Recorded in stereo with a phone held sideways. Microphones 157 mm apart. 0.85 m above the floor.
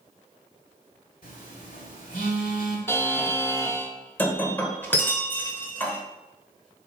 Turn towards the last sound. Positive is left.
turn(degrees=15)  # may be behind; listen again after turning